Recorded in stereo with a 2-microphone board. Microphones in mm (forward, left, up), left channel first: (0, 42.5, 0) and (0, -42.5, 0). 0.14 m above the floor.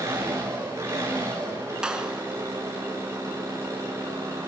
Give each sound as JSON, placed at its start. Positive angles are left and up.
{"t": 0.0, "sound": "an engine running", "side_deg": -35, "distance_m": 7.0}
{"t": 1.8, "sound": "a clap", "side_deg": -10, "distance_m": 1.6}